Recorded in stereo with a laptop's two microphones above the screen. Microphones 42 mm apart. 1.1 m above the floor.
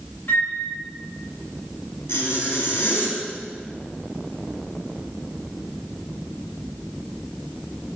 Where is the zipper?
75° left (ahead or behind), 1.7 m.